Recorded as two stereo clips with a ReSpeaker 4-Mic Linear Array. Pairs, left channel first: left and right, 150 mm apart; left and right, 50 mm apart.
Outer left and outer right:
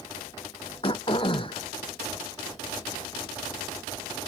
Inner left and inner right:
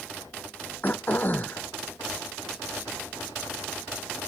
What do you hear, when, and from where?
0.8 s throat clearing: 35° left (ahead or behind)